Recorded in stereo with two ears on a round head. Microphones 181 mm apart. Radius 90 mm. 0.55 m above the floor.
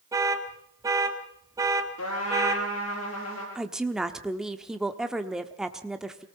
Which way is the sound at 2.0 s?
90° left.